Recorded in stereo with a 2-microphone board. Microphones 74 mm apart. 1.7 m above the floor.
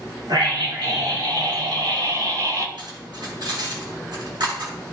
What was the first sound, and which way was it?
A scream, 80° right.